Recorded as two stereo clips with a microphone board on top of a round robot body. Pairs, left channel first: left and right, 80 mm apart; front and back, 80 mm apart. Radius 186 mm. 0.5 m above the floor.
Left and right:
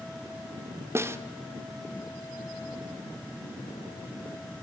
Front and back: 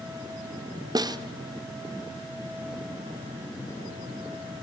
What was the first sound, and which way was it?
A snare drum, 145° right.